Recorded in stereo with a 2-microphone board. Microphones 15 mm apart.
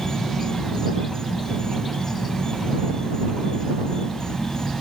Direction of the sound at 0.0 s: 55° left (ahead or behind).